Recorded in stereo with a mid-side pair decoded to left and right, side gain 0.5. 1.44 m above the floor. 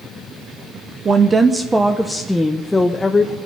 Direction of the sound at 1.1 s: 40° right.